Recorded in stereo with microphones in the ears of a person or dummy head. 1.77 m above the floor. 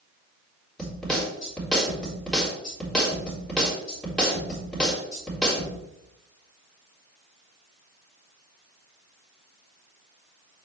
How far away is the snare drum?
About 3.5 m.